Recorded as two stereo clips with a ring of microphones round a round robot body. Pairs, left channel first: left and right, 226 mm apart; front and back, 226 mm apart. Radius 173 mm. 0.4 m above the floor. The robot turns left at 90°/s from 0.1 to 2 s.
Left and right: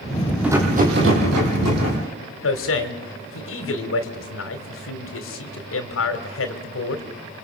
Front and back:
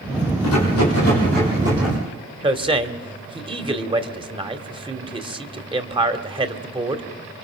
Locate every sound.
0.4 s a rattle: 5° right, 6 m; by 2.0 s 145° right, 6 m
2.4 s a man speaking: 115° left, 2 m